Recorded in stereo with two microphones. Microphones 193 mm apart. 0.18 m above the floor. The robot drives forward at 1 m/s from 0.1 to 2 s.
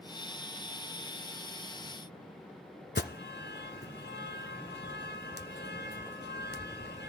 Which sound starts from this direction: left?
An alarm, at 3.0 s.